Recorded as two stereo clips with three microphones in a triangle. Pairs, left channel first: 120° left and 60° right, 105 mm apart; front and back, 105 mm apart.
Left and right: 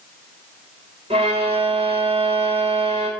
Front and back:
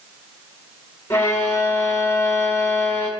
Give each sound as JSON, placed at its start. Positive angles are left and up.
{"t": 1.1, "sound": "a violin", "azimuth_deg": -65, "distance_m": 0.6}